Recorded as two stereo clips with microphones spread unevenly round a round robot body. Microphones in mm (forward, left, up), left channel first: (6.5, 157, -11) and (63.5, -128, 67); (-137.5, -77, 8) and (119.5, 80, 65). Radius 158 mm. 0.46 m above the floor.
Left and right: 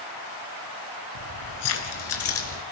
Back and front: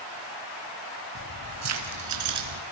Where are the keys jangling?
75° left, 3.5 m; by 2.6 s 60° left, 4.5 m.